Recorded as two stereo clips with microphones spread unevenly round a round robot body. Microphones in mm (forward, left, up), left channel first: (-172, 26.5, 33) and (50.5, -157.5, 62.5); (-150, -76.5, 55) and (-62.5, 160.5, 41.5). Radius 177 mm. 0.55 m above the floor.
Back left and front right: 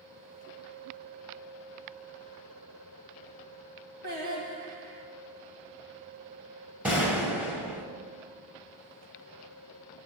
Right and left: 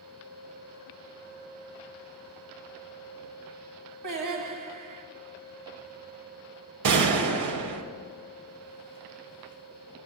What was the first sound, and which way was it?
Singing, 25° left.